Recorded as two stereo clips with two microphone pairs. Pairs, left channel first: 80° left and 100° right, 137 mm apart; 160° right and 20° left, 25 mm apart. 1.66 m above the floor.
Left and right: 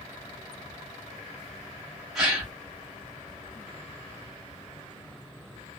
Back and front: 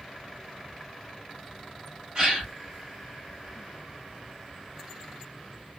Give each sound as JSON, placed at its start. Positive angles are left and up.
{"t": 2.1, "sound": "a gasp", "azimuth_deg": -10, "distance_m": 1.3}